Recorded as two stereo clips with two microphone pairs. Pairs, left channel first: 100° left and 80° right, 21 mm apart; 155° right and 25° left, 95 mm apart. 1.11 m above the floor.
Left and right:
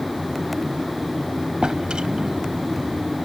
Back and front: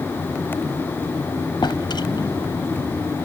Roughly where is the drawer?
Behind right.